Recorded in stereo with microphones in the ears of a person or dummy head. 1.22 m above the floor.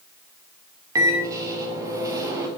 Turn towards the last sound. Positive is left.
turn(degrees=-15)  # may be behind; listen again after turning